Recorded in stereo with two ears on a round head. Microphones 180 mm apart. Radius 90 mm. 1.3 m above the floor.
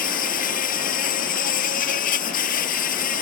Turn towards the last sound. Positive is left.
turn(degrees=40)  # may be behind; listen again after turning